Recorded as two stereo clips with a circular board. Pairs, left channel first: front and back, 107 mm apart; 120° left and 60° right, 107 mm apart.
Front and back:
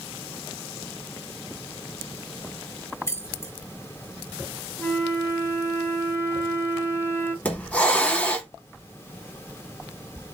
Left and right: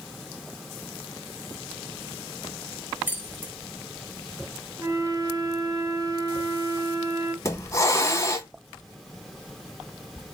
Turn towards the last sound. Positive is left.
turn(degrees=75)